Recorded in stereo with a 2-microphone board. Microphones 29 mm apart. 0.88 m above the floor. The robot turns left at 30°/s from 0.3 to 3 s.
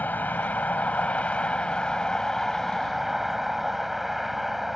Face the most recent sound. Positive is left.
turn(degrees=0)